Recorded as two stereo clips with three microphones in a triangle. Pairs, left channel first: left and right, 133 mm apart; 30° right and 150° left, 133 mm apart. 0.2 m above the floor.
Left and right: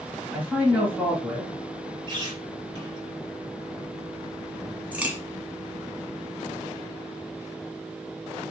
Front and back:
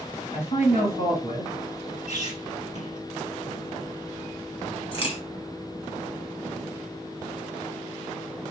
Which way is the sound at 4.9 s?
15° right.